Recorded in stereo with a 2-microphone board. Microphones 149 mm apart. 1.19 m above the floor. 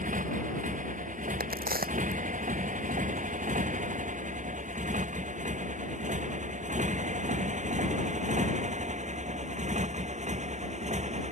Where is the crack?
85° right.